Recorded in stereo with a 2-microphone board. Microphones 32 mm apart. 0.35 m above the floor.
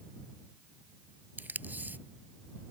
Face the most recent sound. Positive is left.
turn(degrees=-65)  # may be behind; listen again after turning